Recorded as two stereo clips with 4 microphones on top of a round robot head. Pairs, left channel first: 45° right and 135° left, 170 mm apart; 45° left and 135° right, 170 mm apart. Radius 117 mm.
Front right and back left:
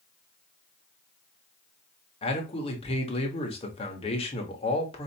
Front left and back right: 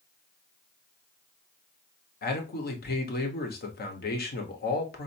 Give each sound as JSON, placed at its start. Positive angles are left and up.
{"t": 2.2, "sound": "a man speaking", "azimuth_deg": 15, "distance_m": 1.2}